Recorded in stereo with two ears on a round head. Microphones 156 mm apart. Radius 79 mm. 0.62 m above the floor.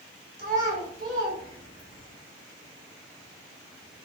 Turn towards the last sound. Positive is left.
turn(degrees=15)  # may be behind; listen again after turning